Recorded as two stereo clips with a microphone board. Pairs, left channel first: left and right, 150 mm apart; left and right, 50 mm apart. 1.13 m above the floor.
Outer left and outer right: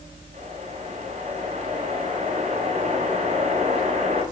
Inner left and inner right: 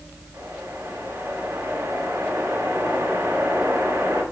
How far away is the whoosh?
About 9.5 m.